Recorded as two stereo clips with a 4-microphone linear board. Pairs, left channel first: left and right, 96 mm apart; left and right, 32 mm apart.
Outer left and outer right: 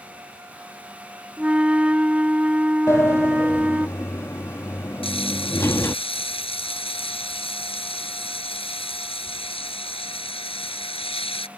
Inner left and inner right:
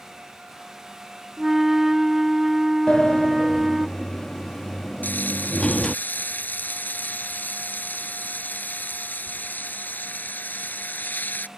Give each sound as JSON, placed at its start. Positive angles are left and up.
{"t": 1.4, "sound": "a flute", "side_deg": -10}
{"t": 2.9, "sound": "a sliding door", "side_deg": 30}
{"t": 5.0, "sound": "frying", "side_deg": 75}